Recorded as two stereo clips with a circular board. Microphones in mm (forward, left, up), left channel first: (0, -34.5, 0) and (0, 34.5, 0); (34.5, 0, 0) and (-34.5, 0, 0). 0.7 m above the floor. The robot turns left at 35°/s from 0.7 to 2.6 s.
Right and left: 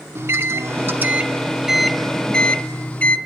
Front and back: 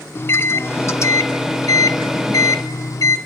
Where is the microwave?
45° left, 0.9 m; by 3.2 s 25° right, 0.9 m.